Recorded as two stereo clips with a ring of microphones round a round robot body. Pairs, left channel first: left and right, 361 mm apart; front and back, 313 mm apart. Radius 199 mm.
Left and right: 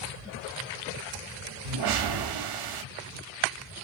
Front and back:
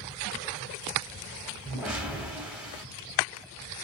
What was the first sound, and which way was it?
A whoosh, 95° right.